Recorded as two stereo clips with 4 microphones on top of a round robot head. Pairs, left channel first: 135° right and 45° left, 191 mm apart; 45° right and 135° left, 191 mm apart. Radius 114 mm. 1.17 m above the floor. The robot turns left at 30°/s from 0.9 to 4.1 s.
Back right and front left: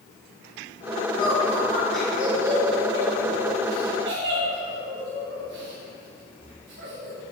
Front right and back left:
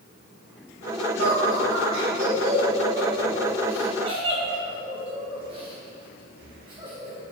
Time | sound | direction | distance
1.2 | laughter | 160° left | 2.5 m